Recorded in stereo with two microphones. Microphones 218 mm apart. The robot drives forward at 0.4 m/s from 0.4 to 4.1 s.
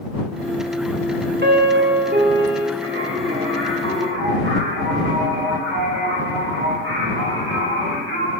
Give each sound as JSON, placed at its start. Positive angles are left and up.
{"t": 1.4, "sound": "a piano", "side_deg": -50, "distance_m": 1.1}
{"t": 2.8, "sound": "singing", "side_deg": -70, "distance_m": 2.5}